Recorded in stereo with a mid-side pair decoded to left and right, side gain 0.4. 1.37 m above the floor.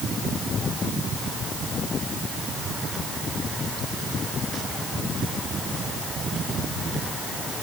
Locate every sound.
Only background noise.